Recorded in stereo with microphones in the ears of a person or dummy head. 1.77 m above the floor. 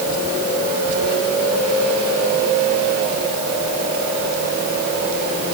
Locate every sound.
Only background noise.